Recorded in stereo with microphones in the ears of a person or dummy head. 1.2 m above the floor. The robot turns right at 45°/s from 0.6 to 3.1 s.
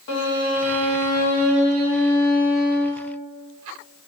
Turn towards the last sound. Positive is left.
turn(degrees=-170)